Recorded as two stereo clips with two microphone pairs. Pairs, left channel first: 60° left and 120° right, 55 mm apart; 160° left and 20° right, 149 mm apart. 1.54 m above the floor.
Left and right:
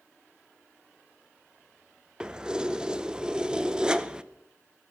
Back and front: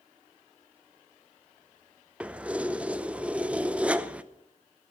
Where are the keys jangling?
80° right, 0.6 m.